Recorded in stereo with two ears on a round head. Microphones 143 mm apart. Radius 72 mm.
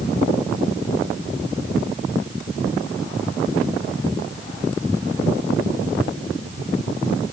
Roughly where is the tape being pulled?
No tape being pulled in this recording.